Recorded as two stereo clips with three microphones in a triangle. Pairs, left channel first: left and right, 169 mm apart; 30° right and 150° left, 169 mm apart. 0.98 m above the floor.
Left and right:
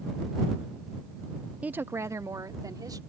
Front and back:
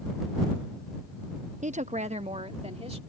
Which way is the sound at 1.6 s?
170° right.